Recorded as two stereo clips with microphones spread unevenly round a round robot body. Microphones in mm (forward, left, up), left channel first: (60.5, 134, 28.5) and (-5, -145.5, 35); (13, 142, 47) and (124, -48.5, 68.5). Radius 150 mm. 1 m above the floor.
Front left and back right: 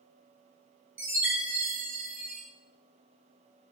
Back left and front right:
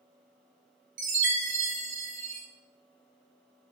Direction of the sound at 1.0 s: 20° right.